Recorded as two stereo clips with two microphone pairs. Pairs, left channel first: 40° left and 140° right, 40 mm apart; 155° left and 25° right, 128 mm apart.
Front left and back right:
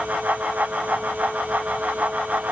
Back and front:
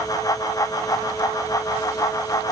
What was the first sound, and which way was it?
Only background noise.